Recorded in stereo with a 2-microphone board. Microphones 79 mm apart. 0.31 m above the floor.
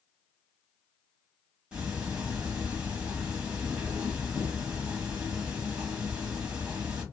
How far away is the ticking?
About 1.5 m.